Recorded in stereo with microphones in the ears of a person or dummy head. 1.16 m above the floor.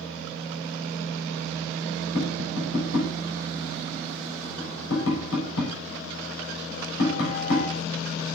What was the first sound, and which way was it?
Tapping, 75° left (ahead or behind).